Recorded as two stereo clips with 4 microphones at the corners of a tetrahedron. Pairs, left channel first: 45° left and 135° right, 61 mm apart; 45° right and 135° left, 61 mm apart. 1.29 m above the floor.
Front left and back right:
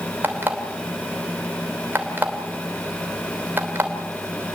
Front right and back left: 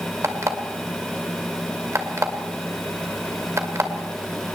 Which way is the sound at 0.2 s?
170° left.